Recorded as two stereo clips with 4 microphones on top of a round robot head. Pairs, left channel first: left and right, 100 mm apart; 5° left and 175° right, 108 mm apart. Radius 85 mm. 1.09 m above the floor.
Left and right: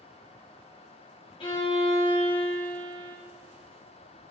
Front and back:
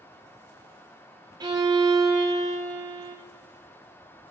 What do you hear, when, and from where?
1.4 s a violin: 130° left, 1.1 m